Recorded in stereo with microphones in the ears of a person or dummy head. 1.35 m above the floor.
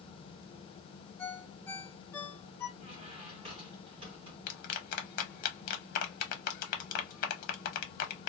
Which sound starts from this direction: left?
A clap, at 4.5 s.